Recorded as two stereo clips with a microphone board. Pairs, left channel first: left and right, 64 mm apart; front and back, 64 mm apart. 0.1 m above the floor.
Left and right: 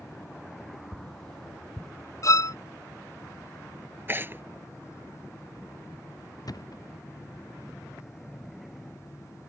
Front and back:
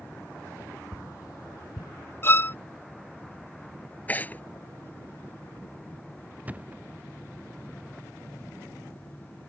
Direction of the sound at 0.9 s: 10° left.